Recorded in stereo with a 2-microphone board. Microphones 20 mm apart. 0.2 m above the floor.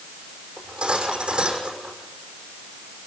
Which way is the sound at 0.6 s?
55° right (ahead or behind).